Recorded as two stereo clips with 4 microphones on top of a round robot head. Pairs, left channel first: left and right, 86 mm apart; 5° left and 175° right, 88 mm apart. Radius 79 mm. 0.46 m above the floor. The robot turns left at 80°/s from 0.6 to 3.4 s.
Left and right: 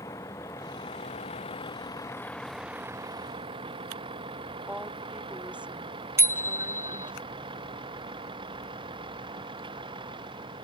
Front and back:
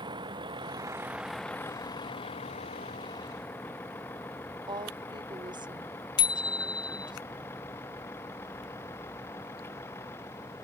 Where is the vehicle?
150° left; by 10.7 s 65° right.